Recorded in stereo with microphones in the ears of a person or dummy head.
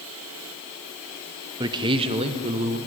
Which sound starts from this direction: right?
A man speaking, at 1.6 s.